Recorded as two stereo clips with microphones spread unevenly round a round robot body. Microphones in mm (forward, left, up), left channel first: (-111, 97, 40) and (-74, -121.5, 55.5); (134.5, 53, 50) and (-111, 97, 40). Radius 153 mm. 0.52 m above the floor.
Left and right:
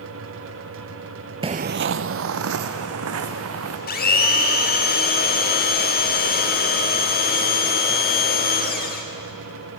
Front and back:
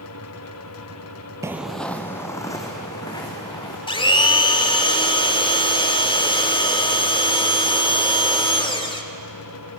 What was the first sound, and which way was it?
Footsteps, 115° right.